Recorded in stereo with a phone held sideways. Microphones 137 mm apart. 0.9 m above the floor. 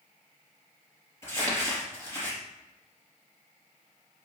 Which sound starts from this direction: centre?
Crumpling, at 1.2 s.